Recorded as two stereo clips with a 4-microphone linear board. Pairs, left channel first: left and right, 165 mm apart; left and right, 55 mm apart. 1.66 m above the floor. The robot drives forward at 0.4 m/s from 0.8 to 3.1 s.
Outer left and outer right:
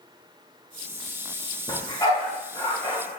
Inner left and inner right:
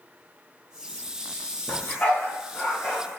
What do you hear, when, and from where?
1.7 s a dog barking: 25° left (ahead or behind), 1.2 m